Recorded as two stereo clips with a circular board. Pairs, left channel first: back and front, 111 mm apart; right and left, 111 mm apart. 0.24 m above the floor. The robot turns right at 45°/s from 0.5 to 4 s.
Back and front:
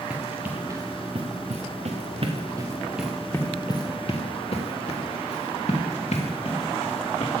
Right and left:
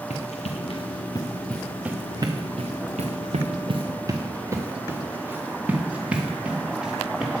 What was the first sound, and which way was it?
Running footsteps, 80° right.